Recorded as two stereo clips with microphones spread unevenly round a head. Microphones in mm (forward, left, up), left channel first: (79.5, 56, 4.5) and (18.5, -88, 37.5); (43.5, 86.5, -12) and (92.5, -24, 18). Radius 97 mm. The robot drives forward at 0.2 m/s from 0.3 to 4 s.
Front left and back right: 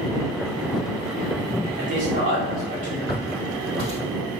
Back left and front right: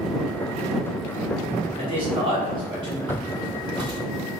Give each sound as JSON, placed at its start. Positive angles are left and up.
{"t": 1.8, "sound": "a man speaking", "azimuth_deg": -95, "distance_m": 1.1}
{"t": 3.1, "sound": "footsteps", "azimuth_deg": 165, "distance_m": 1.9}